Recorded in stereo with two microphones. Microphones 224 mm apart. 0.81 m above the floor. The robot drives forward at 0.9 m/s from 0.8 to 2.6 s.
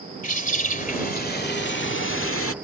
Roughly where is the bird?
Left.